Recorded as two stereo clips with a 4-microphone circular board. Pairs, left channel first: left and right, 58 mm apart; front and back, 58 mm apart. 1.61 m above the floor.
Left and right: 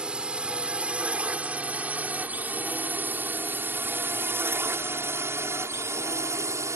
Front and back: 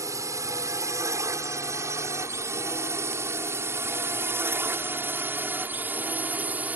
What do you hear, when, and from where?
0.0 s a drone: 165° right; by 6.8 s 120° right